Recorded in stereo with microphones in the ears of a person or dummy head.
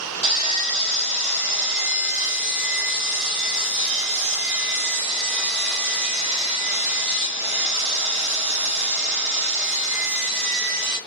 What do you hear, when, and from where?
0.2 s sawing: 10° right (ahead or behind), 1.1 m